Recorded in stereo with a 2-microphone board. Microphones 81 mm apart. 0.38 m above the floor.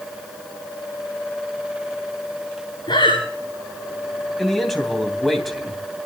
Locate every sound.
2.9 s breathing: 90° left, 7 m
4.4 s a man speaking: centre (ahead or behind), 3 m